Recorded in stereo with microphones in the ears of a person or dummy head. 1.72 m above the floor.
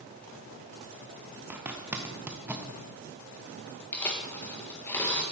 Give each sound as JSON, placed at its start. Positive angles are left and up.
{"t": 1.5, "sound": "a zipper", "side_deg": -5, "distance_m": 0.6}
{"t": 3.9, "sound": "tearing paper", "side_deg": 10, "distance_m": 1.5}